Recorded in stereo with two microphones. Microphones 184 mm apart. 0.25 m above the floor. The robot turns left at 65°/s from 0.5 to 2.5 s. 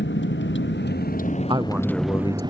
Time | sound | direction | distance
0.0 | a vehicle | 85° left | ?
1.5 | a man speaking | 155° right | ?